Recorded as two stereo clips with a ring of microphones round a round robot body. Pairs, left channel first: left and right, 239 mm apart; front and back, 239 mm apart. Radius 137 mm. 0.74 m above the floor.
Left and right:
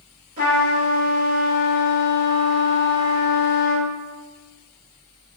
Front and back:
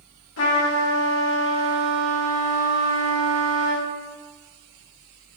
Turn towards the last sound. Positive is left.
turn(degrees=-25)